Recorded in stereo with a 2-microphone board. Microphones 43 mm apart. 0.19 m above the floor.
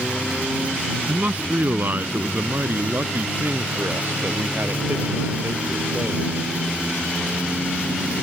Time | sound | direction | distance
1.1 | a man speaking | 45° right (ahead or behind) | ?